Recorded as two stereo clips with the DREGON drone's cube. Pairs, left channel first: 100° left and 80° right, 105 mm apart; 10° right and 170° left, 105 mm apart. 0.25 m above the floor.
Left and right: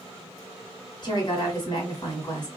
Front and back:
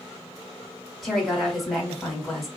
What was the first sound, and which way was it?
A woman speaking, 80° left.